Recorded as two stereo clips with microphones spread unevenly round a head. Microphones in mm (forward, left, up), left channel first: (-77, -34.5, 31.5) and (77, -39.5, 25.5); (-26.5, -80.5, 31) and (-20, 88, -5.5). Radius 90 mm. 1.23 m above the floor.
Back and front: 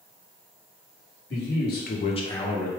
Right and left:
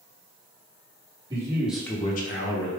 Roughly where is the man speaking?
Behind left.